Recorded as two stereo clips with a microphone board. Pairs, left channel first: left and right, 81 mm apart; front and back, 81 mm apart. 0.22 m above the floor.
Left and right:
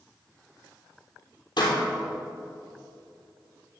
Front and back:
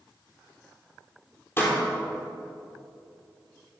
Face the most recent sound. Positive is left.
turn(degrees=65)